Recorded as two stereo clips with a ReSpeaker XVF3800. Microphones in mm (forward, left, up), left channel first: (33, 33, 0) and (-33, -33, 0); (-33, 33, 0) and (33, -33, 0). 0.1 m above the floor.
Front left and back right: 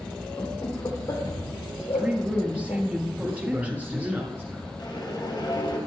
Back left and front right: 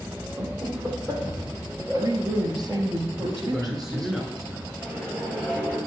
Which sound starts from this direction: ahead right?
A woman speaking, at 1.8 s.